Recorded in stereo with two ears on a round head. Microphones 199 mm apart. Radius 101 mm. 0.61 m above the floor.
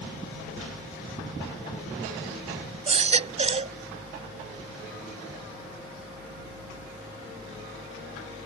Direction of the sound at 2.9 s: 30° right (ahead or behind).